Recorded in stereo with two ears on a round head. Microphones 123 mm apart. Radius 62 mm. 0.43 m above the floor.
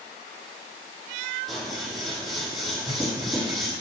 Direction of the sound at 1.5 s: Centre (ahead or behind).